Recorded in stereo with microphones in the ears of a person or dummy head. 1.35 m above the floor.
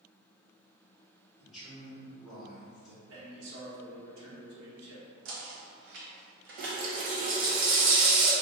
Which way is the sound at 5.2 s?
60° right (ahead or behind).